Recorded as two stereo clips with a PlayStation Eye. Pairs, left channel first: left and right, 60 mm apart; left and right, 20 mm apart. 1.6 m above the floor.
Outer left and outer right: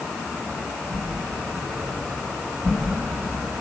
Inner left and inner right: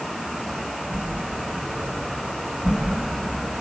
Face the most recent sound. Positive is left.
turn(degrees=-65)  # may be behind; listen again after turning